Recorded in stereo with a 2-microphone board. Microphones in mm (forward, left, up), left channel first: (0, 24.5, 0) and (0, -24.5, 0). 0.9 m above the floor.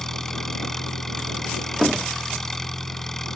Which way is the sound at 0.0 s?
10° left (ahead or behind).